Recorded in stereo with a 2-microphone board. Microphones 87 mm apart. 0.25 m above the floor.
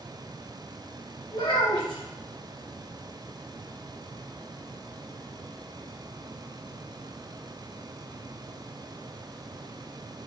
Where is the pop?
No pop in this recording.